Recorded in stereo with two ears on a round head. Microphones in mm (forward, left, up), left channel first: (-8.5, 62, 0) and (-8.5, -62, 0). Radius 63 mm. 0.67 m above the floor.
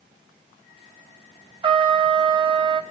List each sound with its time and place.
1.6 s a trumpet: 35° right (ahead or behind), 0.5 m